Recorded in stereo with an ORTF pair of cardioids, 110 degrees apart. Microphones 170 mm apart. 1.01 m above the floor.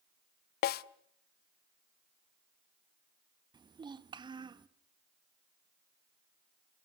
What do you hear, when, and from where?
0.6 s a snare drum: 65° left, 0.6 m
3.5 s a child speaking: 25° right, 1.2 m